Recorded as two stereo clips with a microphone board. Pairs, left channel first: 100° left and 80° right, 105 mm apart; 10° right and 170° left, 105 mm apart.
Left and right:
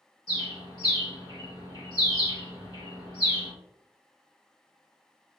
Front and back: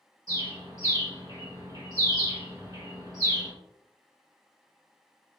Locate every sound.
0.3 s a bird: 130° left, 1.6 m